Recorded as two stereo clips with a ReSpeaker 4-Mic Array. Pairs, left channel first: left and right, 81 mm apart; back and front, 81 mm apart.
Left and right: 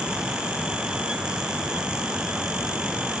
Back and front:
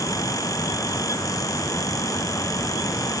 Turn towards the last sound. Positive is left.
No sound to turn to.